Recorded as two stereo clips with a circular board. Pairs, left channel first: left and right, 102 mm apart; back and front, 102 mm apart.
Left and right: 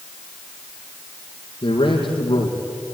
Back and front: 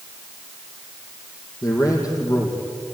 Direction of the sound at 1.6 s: 125° left.